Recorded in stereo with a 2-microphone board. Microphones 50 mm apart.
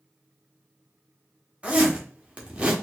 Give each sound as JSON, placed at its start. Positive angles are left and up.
{"t": 1.6, "sound": "a zipper", "side_deg": -25, "distance_m": 1.0}